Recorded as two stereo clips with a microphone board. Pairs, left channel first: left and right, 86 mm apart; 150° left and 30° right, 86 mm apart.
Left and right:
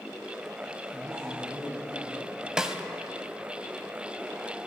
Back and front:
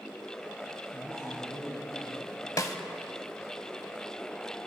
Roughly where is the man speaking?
Behind.